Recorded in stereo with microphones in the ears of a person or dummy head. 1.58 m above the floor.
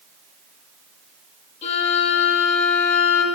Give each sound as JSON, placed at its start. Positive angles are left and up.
{"t": 1.6, "sound": "a violin", "side_deg": 40, "distance_m": 5.5}